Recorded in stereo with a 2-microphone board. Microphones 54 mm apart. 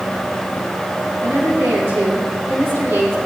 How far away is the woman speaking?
About 6.5 m.